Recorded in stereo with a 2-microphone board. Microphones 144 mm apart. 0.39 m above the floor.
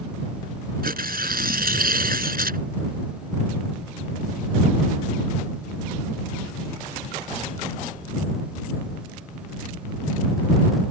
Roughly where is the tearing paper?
Right.